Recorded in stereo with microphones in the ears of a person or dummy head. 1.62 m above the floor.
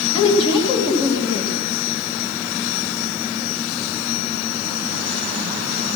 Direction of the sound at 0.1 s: 30° left (ahead or behind).